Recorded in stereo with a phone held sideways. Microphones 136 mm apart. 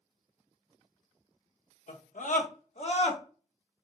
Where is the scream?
70° left (ahead or behind), 0.9 m; by 3.2 s 45° left (ahead or behind), 1.1 m.